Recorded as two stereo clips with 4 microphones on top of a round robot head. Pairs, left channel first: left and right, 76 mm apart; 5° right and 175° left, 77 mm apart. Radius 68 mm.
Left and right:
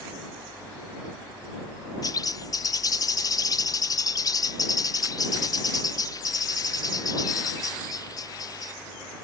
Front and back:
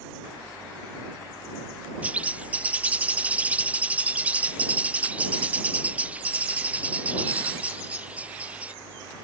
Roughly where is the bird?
Left.